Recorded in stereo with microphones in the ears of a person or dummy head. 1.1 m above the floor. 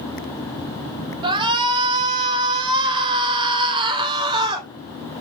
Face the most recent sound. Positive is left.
turn(degrees=-25)  # may be behind; listen again after turning